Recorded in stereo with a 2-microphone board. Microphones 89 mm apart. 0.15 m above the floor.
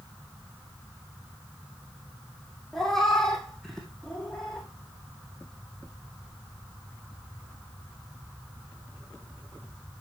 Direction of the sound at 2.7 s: 5° left (ahead or behind).